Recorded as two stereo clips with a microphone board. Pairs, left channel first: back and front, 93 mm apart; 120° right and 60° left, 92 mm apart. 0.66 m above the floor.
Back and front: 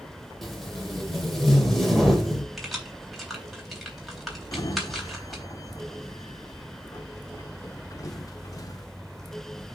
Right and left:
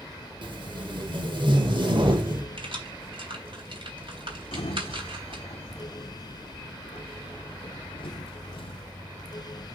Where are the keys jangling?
90° left, 3.5 m.